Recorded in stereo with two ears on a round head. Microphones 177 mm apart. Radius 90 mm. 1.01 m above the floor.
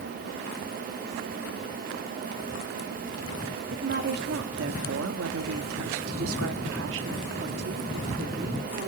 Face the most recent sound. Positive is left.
turn(degrees=-45)  # may be behind; listen again after turning